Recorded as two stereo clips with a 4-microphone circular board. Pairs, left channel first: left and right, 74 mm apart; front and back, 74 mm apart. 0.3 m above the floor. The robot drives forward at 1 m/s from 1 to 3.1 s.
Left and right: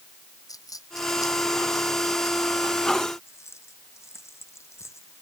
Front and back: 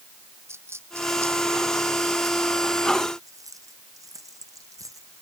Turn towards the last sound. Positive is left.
turn(degrees=140)